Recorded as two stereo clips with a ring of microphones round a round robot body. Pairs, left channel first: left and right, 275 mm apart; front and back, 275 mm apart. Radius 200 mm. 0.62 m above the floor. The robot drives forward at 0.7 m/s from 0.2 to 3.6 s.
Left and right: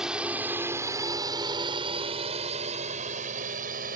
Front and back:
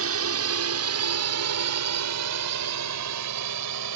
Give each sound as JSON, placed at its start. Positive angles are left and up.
{"t": 0.0, "sound": "a drone", "azimuth_deg": 180}